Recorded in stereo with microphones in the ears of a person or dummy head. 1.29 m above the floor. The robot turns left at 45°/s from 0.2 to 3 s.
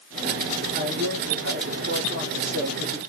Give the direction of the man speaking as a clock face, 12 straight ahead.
2 o'clock.